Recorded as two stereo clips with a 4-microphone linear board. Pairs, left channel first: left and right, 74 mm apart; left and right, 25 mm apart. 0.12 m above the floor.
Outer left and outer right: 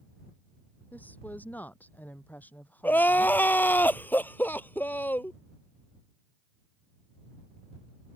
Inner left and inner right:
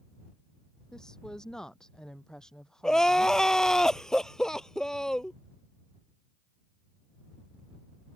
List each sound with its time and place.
0.9 s a woman speaking: 20° left (ahead or behind)
2.8 s crying: 25° left (ahead or behind)